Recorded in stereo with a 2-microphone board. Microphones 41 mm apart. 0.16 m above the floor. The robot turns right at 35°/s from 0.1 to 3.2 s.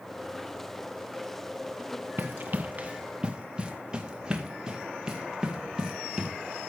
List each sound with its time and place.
2.2 s running footsteps: 65° right (ahead or behind), 0.9 m; by 6.3 s 15° right (ahead or behind), 3 m